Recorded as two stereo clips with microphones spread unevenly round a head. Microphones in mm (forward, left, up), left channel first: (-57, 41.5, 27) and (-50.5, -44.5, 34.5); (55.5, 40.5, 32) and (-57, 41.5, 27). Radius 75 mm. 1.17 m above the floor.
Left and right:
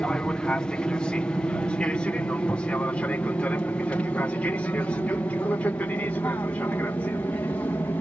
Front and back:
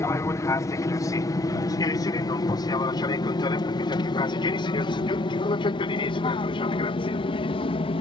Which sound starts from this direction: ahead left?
An aircraft, at 0.0 s.